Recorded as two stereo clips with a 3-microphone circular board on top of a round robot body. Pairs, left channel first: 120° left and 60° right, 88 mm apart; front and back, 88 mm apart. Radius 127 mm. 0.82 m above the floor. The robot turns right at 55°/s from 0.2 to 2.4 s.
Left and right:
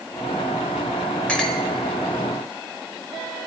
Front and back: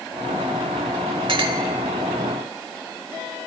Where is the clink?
160° right, 1.1 m; by 1.6 s 145° right, 1.1 m.